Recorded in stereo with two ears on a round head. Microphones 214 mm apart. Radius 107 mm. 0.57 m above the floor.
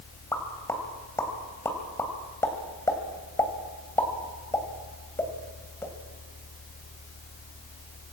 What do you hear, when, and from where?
0.3 s a pop: 10° left (ahead or behind), 2.5 m